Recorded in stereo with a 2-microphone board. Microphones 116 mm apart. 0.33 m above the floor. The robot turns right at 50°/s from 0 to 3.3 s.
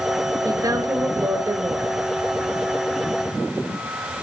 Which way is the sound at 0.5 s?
30° right (ahead or behind).